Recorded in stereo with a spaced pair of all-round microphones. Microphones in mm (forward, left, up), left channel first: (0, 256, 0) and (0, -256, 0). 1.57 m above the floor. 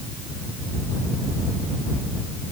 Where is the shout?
No shout in this recording.